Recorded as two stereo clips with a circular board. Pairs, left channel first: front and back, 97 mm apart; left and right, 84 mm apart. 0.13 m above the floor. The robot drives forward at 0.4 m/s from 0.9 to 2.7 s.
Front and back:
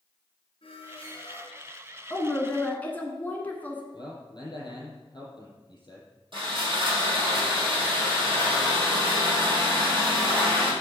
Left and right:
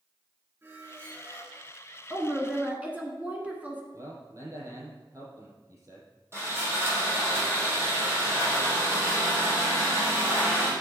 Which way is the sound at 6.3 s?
150° right.